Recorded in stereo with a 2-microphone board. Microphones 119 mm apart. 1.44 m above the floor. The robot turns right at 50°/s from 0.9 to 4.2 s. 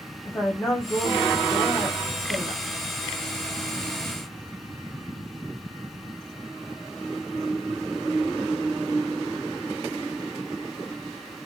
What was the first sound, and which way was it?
A woman speaking, 155° left.